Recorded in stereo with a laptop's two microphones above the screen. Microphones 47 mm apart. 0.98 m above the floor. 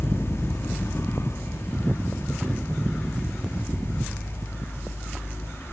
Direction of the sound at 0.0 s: 60° left (ahead or behind).